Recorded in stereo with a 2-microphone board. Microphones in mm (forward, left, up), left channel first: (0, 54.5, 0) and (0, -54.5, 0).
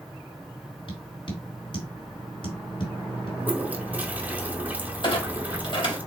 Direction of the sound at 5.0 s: 50° left (ahead or behind).